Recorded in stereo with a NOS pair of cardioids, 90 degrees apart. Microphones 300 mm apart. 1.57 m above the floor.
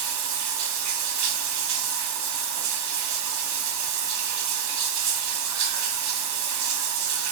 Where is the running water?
70° right, 1.0 m.